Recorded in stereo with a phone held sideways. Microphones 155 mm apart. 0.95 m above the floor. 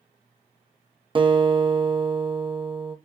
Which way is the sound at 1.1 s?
35° right (ahead or behind).